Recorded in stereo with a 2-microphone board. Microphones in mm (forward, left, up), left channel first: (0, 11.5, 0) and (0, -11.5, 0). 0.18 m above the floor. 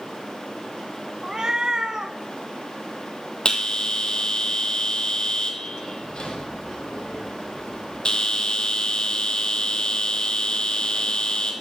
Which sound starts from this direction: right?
A cat meowing, at 1.2 s.